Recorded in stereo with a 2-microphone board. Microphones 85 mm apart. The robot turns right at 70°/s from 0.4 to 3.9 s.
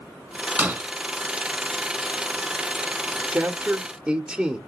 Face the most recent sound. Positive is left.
turn(degrees=-10)  # may be behind; listen again after turning